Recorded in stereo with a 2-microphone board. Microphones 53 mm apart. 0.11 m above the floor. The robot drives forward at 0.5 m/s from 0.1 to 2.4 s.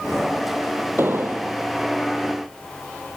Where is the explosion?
45° right (ahead or behind), 1.9 m; by 1.6 s 50° right (ahead or behind), 1.8 m.